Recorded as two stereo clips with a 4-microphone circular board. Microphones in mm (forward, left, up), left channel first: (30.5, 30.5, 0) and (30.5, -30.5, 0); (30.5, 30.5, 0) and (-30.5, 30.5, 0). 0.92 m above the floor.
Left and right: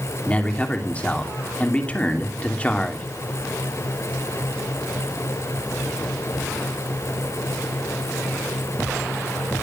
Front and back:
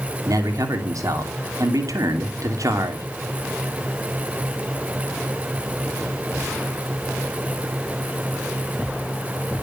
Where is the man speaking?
160° left, 2.5 m.